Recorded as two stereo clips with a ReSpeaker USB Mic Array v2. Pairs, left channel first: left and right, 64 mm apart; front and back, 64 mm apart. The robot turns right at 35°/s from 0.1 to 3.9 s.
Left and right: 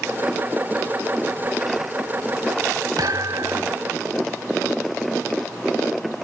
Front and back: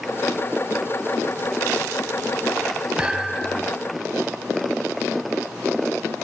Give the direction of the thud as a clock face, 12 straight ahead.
3 o'clock.